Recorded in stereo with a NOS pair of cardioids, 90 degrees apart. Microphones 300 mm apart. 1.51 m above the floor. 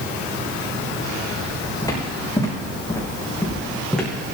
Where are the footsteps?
15° left, 5.5 m; by 4.1 s straight ahead, 5 m.